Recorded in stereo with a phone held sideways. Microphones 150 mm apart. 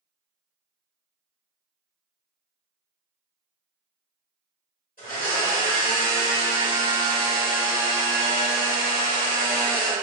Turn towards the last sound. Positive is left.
turn(degrees=70)  # may be behind; listen again after turning